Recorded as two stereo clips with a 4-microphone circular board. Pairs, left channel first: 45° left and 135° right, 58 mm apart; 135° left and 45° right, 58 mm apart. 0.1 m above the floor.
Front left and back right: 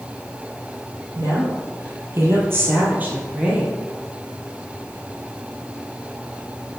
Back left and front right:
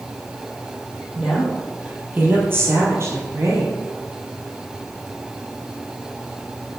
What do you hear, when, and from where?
1.1 s a woman speaking: 120° right, 2.5 m; by 3.8 s 60° right, 2.5 m